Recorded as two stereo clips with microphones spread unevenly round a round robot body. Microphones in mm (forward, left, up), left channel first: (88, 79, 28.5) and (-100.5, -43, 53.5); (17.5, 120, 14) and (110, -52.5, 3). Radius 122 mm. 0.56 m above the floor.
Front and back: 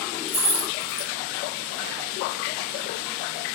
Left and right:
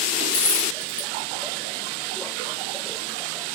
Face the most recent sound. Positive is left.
turn(degrees=110)